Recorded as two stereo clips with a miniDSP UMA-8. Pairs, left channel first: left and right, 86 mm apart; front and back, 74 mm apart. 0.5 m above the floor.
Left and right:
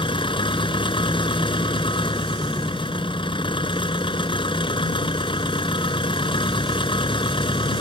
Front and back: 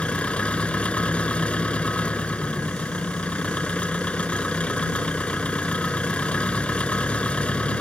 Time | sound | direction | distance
0.0 | an engine running | 75° left | ?